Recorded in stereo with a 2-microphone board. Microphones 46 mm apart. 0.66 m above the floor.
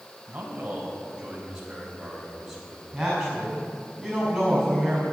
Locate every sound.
0.3 s a man speaking: 25° right (ahead or behind), 4 m; by 2.8 s centre (ahead or behind), 4.5 m
2.9 s a woman speaking: 5° right (ahead or behind), 5.5 m